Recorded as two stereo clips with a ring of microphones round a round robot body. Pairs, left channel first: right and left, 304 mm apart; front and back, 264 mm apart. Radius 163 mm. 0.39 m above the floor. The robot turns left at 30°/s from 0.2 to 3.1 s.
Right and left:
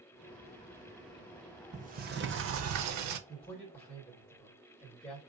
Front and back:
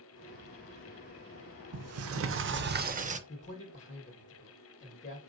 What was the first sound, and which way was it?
A sliding door, 160° left.